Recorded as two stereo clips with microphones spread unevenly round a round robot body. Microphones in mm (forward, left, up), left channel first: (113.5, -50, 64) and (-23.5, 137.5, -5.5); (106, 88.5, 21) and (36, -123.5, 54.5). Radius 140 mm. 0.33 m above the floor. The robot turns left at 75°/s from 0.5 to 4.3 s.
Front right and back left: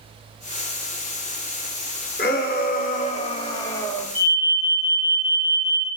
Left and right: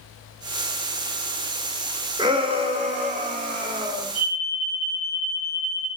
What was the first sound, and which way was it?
A shout, 45° right.